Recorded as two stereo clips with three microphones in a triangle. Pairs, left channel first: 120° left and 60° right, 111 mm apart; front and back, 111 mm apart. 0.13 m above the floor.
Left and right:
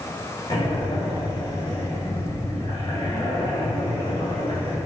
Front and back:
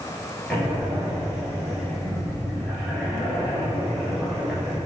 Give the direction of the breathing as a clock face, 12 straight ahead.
9 o'clock.